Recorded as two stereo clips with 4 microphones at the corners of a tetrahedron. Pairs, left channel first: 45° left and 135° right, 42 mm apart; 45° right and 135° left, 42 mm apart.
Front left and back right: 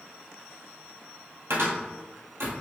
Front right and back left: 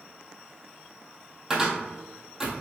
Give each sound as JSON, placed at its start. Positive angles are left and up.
{"t": 1.5, "sound": "a cupboard door", "azimuth_deg": -145, "distance_m": 1.4}